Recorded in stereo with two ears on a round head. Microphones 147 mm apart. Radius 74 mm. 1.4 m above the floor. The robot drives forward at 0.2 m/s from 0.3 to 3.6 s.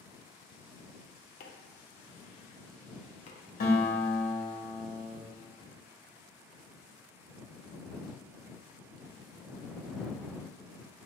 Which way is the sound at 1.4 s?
60° left (ahead or behind).